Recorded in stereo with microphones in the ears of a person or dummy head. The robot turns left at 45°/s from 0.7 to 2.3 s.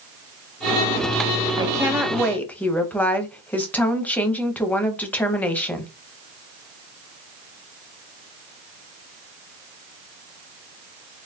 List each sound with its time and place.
1.6 s a woman speaking: 155° right, 0.7 m; by 5.9 s 170° left, 0.7 m